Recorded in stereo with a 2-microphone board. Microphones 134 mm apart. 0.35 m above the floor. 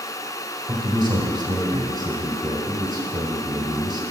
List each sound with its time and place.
0.7 s a man speaking: 35° right (ahead or behind), 1.4 m